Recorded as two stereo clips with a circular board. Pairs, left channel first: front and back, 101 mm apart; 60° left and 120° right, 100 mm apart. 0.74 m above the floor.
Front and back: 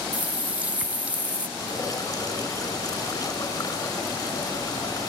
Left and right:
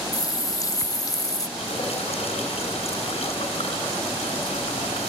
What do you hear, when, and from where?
0.1 s a running tap: 105° left, 0.6 m
1.6 s dripping: 50° left, 4 m